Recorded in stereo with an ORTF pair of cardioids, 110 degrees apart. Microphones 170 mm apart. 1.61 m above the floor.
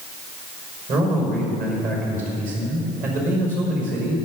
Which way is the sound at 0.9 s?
55° right.